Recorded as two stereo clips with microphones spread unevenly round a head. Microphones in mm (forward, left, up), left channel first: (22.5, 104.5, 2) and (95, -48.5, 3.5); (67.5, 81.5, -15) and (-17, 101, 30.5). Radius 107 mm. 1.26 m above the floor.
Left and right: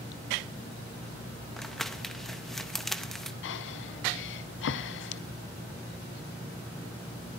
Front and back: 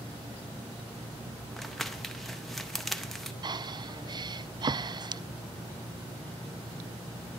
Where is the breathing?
120° left, 0.6 m.